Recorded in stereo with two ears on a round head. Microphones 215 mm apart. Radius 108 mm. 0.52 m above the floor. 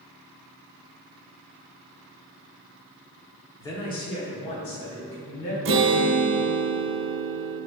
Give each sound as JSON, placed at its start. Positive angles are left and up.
{"t": 3.6, "sound": "a man speaking", "side_deg": 10, "distance_m": 1.2}
{"t": 5.7, "sound": "a guitar", "side_deg": -55, "distance_m": 0.8}